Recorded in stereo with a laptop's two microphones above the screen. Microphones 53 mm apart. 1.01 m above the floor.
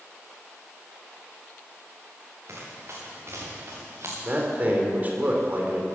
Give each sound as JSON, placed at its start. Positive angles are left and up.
{"t": 2.5, "sound": "running footsteps", "side_deg": -55, "distance_m": 7.0}
{"t": 4.2, "sound": "a man speaking", "side_deg": -30, "distance_m": 2.5}